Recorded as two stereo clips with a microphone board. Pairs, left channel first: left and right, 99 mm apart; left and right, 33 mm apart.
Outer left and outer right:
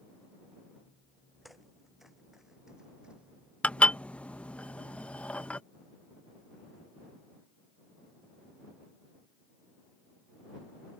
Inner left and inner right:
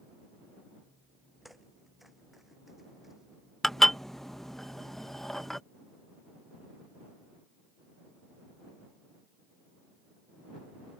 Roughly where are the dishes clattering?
Centre.